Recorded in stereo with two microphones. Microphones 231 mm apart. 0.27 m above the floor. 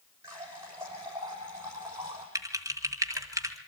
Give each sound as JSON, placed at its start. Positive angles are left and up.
{"t": 0.2, "sound": "a running tap", "side_deg": -10, "distance_m": 6.5}
{"t": 2.4, "sound": "typing on a keyboard", "side_deg": -15, "distance_m": 1.8}